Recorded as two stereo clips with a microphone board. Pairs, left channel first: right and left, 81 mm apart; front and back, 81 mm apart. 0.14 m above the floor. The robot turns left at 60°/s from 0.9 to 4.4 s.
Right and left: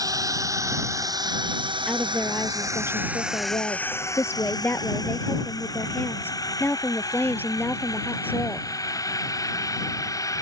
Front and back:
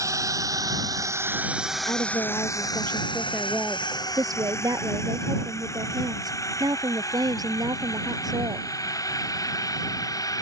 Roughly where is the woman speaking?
Ahead.